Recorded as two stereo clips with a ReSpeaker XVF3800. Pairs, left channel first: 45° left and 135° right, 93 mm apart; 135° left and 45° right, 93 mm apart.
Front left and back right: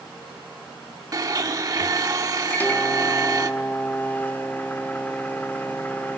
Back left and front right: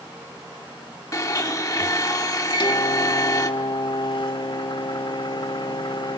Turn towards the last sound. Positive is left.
turn(degrees=115)